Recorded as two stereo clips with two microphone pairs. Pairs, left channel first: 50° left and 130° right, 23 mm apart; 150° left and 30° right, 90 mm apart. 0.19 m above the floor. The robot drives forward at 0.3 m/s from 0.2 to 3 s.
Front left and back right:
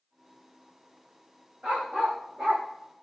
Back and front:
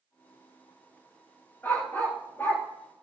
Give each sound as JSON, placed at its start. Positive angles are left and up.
{"t": 1.6, "sound": "a dog barking", "azimuth_deg": -140, "distance_m": 7.0}